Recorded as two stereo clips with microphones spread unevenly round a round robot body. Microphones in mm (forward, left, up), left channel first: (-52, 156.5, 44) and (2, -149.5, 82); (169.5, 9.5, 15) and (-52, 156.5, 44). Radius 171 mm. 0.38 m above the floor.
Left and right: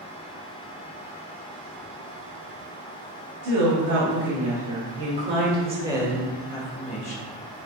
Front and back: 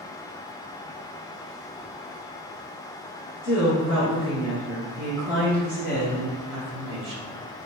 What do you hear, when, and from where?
3.4 s a woman speaking: 90° right, 3.5 m; by 7.3 s 160° left, 3 m